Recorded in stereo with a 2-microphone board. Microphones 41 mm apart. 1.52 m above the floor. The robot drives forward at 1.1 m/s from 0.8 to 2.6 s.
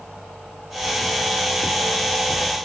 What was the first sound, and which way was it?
Only background noise.